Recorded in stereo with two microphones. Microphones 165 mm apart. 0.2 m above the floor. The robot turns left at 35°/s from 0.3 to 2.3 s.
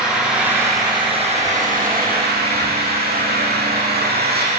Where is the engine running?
5° right, 7 m; by 4.6 s 75° right, 7 m.